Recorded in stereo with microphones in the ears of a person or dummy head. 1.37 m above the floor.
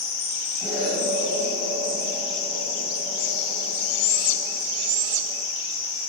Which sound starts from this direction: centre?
An explosion, at 0.6 s.